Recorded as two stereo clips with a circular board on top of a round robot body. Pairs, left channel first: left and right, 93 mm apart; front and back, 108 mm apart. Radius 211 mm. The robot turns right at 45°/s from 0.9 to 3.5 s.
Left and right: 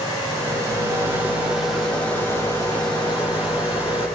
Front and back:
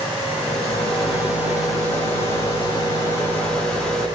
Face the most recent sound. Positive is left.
turn(degrees=80)